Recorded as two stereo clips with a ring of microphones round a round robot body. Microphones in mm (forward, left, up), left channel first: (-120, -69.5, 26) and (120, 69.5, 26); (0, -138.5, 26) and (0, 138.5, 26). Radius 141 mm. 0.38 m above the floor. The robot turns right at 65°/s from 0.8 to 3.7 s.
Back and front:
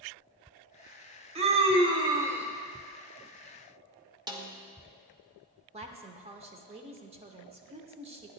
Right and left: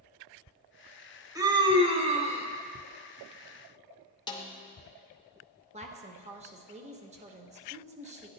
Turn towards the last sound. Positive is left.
turn(degrees=65)